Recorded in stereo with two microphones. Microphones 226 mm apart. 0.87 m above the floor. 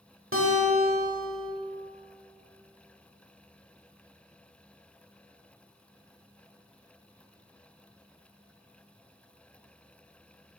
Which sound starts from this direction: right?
A guitar, at 0.3 s.